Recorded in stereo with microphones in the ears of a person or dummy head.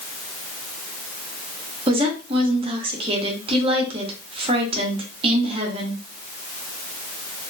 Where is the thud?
No thud in this recording.